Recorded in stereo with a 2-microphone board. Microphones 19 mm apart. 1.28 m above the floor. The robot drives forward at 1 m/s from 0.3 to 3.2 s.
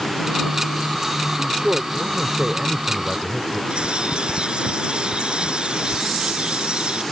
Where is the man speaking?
60° right (ahead or behind); by 3.6 s 45° right (ahead or behind).